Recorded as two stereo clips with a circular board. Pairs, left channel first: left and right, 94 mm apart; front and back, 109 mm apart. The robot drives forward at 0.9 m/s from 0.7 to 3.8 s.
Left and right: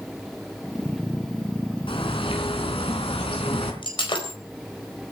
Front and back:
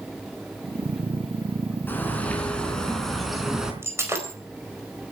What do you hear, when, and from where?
1.9 s a bird: 70° left, 4 m; by 3.7 s 95° left, 4 m
3.8 s breaking glass: 115° left, 4.5 m